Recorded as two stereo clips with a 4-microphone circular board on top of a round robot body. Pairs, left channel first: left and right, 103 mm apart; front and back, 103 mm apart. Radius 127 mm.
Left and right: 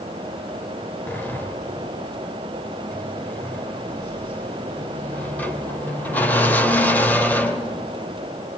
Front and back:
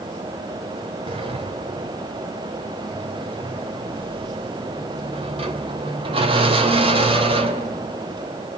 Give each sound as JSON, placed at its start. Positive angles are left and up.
{"t": 1.1, "sound": "a sliding door", "azimuth_deg": 165, "distance_m": 1.9}